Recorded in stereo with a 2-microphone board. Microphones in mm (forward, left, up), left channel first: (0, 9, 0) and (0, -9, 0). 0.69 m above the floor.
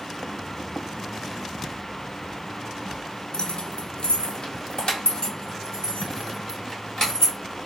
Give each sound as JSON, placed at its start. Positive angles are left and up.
{"t": 3.3, "sound": "keys jangling", "side_deg": 50, "distance_m": 0.5}